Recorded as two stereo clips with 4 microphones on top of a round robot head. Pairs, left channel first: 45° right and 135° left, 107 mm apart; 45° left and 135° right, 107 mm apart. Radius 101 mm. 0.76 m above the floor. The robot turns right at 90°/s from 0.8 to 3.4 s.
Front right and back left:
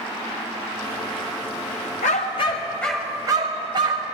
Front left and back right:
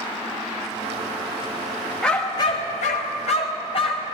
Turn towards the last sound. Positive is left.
turn(degrees=85)